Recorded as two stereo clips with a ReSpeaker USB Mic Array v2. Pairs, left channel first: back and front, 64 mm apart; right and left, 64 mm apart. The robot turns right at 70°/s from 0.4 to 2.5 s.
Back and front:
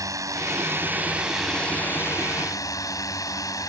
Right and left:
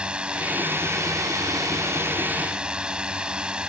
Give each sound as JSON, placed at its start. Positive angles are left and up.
{"t": 0.0, "sound": "a drone", "azimuth_deg": 15}